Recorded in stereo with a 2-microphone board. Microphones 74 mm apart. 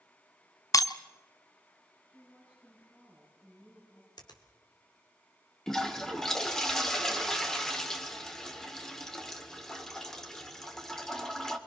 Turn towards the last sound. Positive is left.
turn(degrees=10)  # may be behind; listen again after turning